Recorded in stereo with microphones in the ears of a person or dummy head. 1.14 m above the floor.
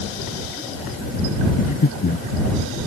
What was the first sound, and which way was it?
Breathing, 40° left (ahead or behind).